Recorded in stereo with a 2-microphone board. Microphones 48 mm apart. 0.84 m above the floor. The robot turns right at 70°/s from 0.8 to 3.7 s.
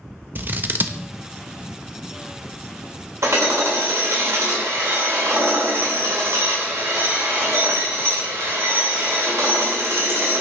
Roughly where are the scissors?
Right.